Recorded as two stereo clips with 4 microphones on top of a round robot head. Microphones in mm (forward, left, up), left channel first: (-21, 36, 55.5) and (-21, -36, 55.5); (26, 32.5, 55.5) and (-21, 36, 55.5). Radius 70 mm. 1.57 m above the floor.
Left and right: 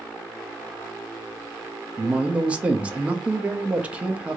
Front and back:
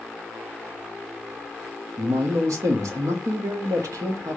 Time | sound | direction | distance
2.0 | a man speaking | 165° right | 0.6 m